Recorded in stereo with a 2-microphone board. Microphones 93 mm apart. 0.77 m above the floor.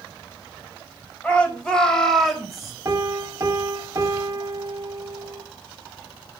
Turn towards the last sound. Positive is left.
turn(degrees=-30)  # may be behind; listen again after turning